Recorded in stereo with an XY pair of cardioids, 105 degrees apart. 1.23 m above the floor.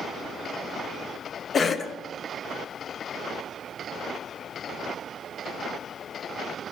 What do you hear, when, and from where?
1.5 s a cough: 40° left, 0.5 m